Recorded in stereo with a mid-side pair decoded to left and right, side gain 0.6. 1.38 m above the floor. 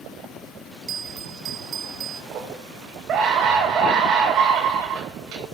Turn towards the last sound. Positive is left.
turn(degrees=-45)